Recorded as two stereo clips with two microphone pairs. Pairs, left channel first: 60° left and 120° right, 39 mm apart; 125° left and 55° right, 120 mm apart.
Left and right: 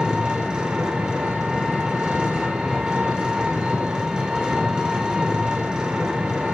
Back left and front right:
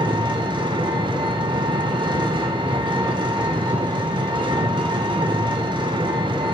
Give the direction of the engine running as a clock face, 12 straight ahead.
2 o'clock.